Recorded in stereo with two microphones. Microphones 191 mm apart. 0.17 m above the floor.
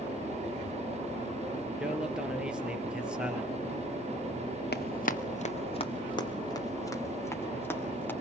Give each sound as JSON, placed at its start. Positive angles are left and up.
{"t": 1.8, "sound": "a man speaking", "side_deg": -5, "distance_m": 3.0}
{"t": 4.7, "sound": "running footsteps", "side_deg": 60, "distance_m": 1.5}